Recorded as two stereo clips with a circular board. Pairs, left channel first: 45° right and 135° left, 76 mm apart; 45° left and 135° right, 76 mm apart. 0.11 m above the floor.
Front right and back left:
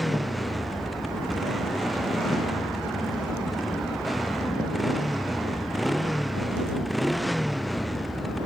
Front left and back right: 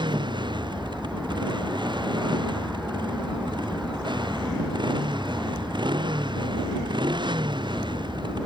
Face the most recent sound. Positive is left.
turn(degrees=-135)